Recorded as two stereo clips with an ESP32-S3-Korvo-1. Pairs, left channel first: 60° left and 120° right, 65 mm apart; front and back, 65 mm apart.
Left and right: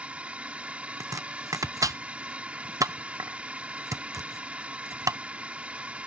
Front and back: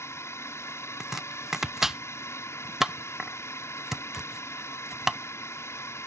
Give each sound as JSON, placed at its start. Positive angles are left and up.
{"t": 0.0, "sound": "a drone", "azimuth_deg": -50}
{"t": 1.0, "sound": "chopping", "azimuth_deg": -95}